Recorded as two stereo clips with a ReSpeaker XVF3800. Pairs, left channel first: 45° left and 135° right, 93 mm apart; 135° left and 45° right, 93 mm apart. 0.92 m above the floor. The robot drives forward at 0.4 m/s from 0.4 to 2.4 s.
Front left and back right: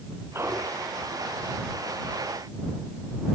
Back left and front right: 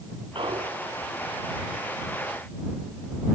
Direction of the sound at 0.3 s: 75° right.